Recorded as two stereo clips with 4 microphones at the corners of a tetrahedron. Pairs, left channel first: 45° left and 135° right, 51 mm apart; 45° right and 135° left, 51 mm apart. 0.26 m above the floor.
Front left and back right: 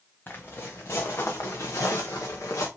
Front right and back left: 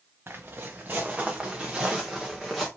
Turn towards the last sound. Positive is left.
turn(degrees=40)